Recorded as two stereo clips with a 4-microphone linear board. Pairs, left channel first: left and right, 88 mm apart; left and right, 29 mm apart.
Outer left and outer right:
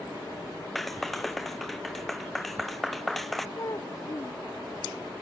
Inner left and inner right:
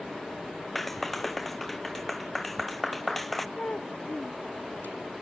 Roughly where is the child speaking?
Left.